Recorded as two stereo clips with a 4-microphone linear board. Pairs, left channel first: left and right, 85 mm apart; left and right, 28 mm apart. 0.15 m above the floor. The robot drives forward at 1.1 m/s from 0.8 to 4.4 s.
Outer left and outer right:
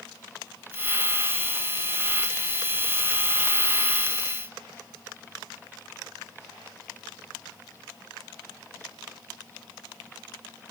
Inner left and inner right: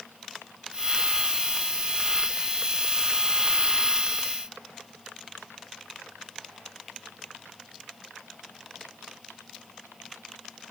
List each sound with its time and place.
Only background noise.